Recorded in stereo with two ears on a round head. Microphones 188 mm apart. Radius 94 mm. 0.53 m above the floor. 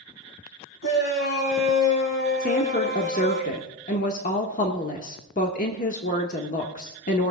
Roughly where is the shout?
Left.